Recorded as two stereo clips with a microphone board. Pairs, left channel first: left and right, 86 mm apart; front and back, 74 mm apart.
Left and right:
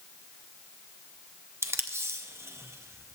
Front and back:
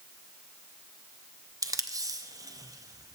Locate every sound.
1.6 s tape being pulled: 145° right, 0.5 m